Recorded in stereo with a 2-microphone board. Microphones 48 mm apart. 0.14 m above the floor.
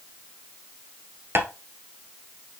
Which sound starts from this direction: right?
Tapping, at 1.4 s.